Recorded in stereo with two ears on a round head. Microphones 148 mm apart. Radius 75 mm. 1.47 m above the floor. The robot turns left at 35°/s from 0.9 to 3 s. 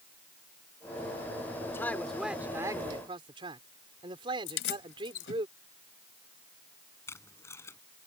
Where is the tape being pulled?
15° left (ahead or behind).